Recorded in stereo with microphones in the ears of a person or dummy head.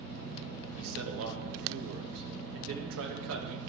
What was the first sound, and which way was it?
A man speaking, 75° right (ahead or behind).